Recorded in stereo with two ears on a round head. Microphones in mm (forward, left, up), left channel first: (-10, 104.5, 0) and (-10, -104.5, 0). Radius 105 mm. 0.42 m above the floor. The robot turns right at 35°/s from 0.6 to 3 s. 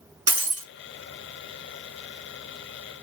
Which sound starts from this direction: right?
Breaking glass, at 0.3 s.